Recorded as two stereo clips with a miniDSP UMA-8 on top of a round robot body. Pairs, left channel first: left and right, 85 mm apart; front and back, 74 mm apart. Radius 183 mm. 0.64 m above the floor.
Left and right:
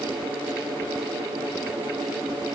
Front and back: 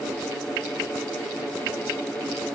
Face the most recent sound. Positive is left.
No sound to turn to.